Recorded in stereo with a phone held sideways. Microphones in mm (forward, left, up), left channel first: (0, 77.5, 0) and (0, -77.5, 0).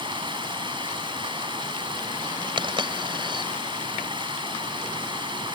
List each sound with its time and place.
0.0 s running water: 30° right (ahead or behind)
2.6 s a dropped coin: 30° right (ahead or behind)